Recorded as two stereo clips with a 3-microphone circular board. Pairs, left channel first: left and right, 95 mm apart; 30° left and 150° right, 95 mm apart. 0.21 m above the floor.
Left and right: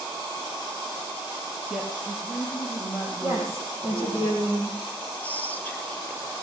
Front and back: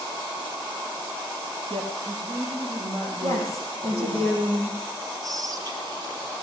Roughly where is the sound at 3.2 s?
Behind right.